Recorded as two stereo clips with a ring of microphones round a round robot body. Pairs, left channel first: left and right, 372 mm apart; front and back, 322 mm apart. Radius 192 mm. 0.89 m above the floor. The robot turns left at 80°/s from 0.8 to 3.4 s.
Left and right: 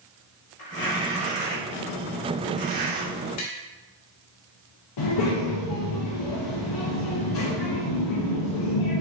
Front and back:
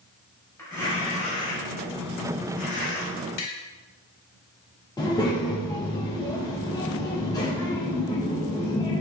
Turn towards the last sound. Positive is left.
turn(degrees=75)